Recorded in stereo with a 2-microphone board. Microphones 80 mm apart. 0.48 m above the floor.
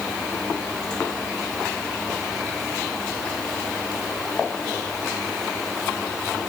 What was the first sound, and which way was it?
Only background noise.